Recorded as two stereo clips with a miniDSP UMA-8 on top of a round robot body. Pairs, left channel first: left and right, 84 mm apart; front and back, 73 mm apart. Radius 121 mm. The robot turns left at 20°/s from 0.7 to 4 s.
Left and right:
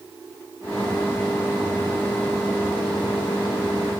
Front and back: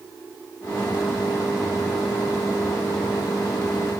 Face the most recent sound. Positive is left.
No sound to turn to.